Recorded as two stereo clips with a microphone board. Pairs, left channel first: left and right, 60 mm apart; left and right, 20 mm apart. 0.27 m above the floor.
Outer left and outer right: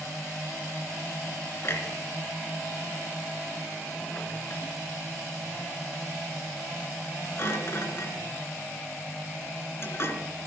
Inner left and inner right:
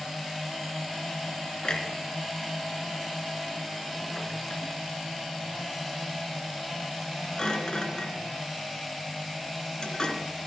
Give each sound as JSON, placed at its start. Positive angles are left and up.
{"t": 1.6, "sound": "a clunk", "side_deg": 45, "distance_m": 2.5}